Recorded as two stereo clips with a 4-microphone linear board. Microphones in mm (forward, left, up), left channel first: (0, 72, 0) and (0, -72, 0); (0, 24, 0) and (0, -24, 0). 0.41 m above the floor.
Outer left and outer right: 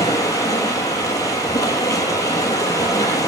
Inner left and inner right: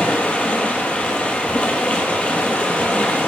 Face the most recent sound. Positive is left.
turn(degrees=25)  # may be behind; listen again after turning